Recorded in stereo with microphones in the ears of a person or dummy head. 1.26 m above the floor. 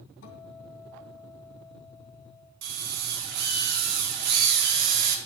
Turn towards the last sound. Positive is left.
turn(degrees=-55)  # may be behind; listen again after turning